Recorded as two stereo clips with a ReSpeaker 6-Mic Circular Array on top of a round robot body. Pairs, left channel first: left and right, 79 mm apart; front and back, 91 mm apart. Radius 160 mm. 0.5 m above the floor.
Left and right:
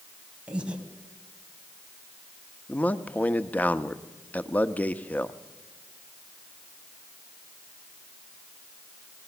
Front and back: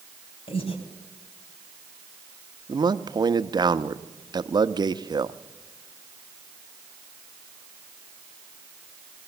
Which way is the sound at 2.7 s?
155° left.